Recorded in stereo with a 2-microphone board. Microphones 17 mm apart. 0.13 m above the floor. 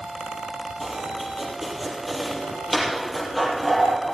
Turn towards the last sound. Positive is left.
turn(degrees=-15)  # may be behind; listen again after turning